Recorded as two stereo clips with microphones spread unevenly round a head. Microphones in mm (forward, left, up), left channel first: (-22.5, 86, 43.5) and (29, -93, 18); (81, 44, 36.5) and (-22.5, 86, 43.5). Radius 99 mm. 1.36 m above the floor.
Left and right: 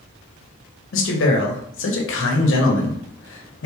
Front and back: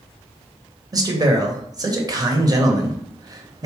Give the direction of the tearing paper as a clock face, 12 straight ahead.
I don't hear tearing paper.